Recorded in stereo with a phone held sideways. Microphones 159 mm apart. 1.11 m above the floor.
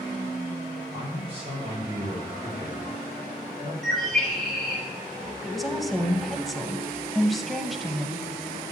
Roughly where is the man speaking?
Right.